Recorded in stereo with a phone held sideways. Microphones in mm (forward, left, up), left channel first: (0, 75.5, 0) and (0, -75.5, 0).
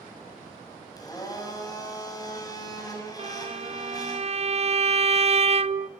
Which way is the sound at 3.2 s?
45° right (ahead or behind).